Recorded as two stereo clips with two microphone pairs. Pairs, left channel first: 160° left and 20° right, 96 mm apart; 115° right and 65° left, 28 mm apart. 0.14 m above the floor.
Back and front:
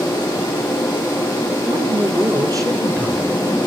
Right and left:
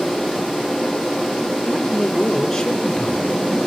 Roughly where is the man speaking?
Ahead right.